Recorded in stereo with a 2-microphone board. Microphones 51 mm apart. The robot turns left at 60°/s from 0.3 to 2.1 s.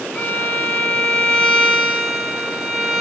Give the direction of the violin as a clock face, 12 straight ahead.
9 o'clock.